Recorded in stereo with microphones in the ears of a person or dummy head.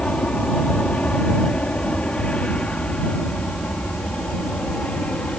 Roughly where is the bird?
No bird in this recording.